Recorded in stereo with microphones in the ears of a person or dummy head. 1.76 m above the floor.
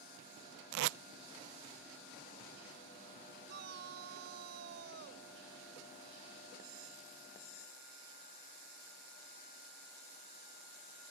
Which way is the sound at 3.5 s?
55° right (ahead or behind).